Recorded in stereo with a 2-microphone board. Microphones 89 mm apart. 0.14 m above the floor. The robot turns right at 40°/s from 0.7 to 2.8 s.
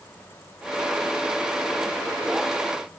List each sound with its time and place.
Only background noise.